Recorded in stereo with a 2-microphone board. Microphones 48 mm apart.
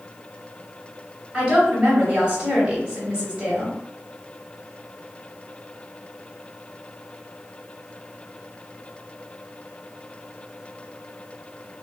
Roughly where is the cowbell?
I don't hear a cowbell.